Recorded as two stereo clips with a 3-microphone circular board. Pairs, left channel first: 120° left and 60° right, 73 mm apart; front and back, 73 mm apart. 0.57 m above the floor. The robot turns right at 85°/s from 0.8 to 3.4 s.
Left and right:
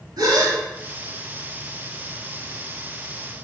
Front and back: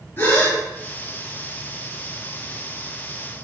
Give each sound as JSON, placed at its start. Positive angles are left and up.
{"t": 0.2, "sound": "a gasp", "azimuth_deg": -55, "distance_m": 1.4}